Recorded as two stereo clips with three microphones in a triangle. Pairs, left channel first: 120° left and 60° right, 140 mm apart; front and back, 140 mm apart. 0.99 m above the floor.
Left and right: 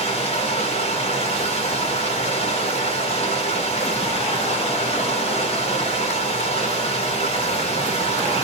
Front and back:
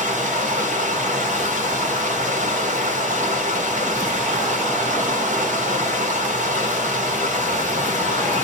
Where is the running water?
160° left, 0.8 m.